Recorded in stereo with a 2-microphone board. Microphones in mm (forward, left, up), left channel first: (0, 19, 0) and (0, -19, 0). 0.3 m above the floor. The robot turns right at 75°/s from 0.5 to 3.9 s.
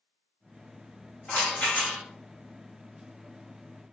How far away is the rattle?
About 2 m.